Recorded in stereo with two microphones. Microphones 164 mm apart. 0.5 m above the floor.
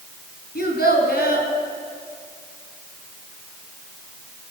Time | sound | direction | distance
0.6 | a child speaking | 75° left (ahead or behind) | 2.5 m